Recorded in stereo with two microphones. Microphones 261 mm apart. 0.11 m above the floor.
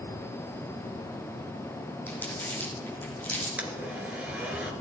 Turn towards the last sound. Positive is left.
turn(degrees=-5)  # may be behind; listen again after turning